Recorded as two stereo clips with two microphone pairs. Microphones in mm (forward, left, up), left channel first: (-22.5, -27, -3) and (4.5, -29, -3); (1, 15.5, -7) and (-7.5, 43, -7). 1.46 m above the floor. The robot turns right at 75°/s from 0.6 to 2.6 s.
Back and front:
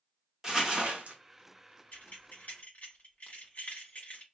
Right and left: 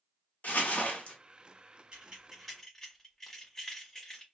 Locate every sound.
0.4 s crumpling: 70° right, 0.9 m; by 1.2 s 25° right, 0.9 m
1.9 s keys jangling: 150° left, 1.4 m; by 4.2 s 155° right, 1.4 m